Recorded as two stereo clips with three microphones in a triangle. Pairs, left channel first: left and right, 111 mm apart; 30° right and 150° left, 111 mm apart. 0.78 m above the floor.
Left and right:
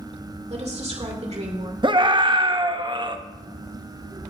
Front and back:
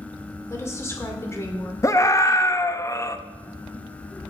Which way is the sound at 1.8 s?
80° right.